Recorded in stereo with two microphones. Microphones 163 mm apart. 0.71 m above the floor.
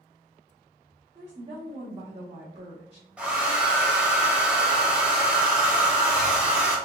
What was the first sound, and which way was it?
A woman speaking, 40° right (ahead or behind).